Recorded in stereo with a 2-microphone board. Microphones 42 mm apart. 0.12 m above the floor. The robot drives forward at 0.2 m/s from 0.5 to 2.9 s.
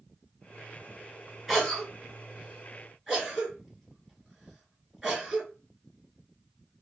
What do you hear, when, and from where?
1.5 s a cough: centre (ahead or behind), 1.9 m